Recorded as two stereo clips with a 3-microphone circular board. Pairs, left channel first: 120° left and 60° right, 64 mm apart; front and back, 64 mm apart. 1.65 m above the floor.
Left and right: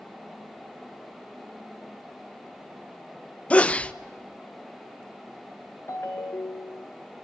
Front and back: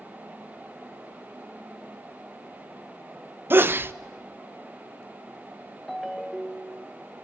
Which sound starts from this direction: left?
A ringtone, at 5.9 s.